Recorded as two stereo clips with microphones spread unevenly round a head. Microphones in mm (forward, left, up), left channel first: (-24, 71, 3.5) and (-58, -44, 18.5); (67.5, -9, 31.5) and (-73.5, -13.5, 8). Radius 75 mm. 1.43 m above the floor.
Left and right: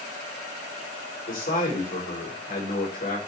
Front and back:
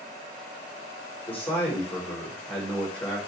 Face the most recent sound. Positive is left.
turn(degrees=80)